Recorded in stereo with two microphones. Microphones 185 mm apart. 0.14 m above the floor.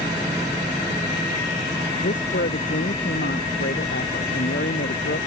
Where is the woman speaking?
75° left (ahead or behind); by 5.2 s 80° left.